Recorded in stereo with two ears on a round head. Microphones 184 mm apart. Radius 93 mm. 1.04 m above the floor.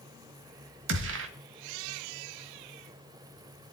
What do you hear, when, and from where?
0.9 s a gunshot: 65° right (ahead or behind), 1.7 m